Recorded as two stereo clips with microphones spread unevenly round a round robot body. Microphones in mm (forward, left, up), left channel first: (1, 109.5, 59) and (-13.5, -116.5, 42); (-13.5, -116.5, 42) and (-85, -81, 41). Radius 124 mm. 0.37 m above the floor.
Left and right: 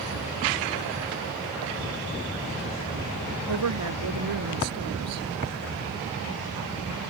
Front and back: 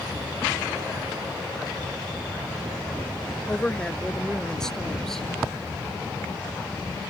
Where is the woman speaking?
100° right; by 5.3 s 115° right.